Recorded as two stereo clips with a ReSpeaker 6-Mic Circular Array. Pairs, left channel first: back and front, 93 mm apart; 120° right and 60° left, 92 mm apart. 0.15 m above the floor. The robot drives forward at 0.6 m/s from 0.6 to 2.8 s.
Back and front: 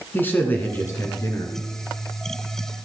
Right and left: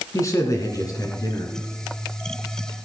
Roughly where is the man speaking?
Behind right.